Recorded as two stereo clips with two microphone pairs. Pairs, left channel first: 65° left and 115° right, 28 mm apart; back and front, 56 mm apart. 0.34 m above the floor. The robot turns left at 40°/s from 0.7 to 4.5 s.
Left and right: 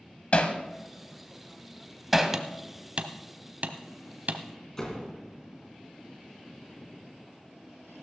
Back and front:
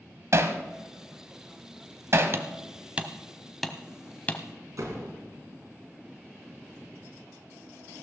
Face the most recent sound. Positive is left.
turn(degrees=-5)